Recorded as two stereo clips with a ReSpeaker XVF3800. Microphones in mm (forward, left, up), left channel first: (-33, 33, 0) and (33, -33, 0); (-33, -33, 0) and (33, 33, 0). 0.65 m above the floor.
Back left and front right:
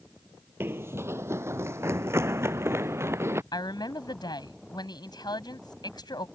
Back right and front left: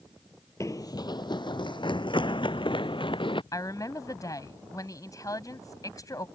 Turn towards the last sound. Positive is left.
turn(degrees=175)